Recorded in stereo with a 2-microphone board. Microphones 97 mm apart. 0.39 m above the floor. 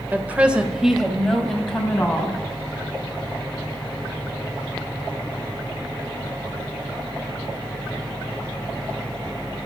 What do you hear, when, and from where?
0.1 s a woman speaking: 20° right (ahead or behind), 1.6 m; by 2.4 s 15° left (ahead or behind), 3.5 m